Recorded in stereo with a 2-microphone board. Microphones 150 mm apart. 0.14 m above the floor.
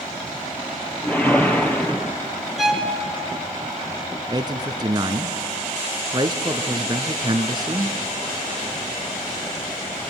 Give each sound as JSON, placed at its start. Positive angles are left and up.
{"t": 1.0, "sound": "a whoosh", "side_deg": 10, "distance_m": 1.6}
{"t": 2.6, "sound": "a violin", "side_deg": -5, "distance_m": 1.9}
{"t": 4.3, "sound": "a man speaking", "side_deg": -30, "distance_m": 1.3}